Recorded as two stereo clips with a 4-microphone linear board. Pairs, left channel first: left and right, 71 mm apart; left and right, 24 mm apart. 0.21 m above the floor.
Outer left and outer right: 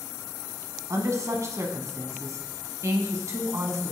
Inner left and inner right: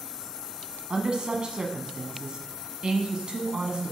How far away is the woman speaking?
About 1.4 m.